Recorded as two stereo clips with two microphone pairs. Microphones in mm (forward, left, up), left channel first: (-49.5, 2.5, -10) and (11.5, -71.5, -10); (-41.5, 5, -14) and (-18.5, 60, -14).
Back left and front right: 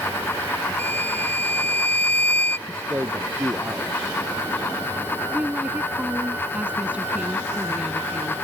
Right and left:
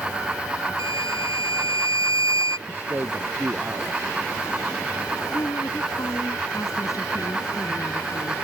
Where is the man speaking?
15° left.